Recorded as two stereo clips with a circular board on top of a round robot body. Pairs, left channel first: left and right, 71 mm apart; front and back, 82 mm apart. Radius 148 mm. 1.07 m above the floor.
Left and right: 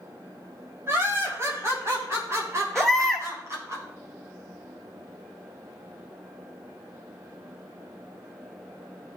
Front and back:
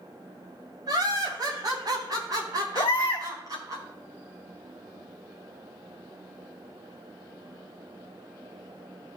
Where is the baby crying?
Straight ahead, 1.2 m.